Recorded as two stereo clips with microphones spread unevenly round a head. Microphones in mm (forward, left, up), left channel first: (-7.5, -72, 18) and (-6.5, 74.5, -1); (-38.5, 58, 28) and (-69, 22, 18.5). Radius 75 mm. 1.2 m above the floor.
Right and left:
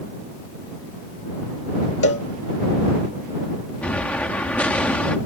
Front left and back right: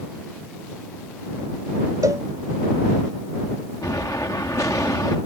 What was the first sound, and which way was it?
A cowbell, 85° right.